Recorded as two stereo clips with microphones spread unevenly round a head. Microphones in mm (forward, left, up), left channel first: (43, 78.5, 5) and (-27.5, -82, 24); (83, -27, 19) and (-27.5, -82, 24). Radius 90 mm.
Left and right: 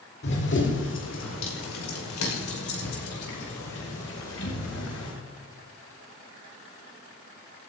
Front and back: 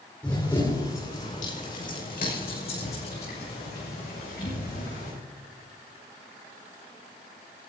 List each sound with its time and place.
0.2 s running footsteps: 105° left, 5 m; by 5.2 s 50° left, 9 m